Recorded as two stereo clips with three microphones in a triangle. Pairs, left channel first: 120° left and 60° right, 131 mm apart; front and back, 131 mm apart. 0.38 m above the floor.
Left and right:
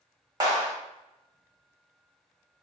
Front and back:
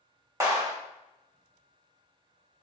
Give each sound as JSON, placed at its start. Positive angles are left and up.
{"t": 0.4, "sound": "a clap", "azimuth_deg": -115, "distance_m": 1.5}